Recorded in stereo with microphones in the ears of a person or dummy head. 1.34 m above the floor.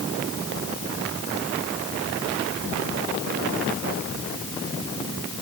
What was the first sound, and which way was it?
Only background noise.